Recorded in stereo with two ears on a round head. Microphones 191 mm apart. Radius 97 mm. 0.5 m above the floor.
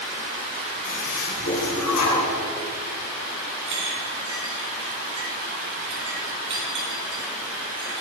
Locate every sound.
0.8 s a toilet flushing: 85° left, 2.5 m
3.7 s a clink: 60° right (ahead or behind), 3.5 m